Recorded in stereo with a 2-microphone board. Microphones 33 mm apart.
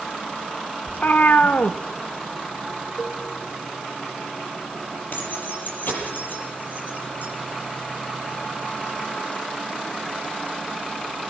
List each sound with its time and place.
0.9 s a cat meowing: 55° left (ahead or behind), 0.8 m
3.0 s a cowbell: 20° left (ahead or behind), 5 m
5.1 s keys jangling: 55° left (ahead or behind), 7 m